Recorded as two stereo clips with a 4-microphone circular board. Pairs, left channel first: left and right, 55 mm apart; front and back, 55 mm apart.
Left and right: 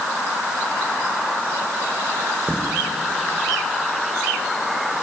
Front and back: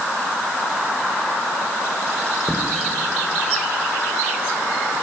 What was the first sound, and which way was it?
Footsteps, 35° left.